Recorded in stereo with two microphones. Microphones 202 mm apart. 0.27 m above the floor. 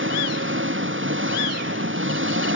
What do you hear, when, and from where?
0.0 s an engine running: 70° right (ahead or behind)